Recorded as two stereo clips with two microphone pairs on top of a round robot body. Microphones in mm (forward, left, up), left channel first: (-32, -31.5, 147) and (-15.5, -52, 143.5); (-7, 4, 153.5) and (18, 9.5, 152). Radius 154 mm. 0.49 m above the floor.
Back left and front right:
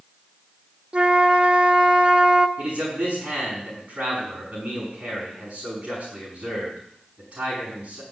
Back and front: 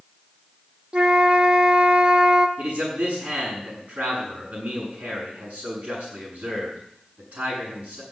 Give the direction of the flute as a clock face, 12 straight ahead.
1 o'clock.